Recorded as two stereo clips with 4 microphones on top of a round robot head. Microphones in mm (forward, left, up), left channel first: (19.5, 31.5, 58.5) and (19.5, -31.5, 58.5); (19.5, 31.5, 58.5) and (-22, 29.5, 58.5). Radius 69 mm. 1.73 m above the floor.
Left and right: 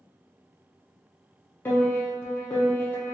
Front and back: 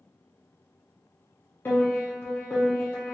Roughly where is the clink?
No clink in this recording.